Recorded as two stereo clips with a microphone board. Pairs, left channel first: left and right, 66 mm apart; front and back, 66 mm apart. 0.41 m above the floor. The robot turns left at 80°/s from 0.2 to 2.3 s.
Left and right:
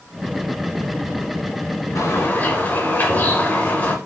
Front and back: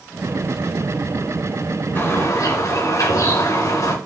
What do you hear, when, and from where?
1.9 s a bird: 60° left, 2.5 m; by 4.0 s 30° left, 2.5 m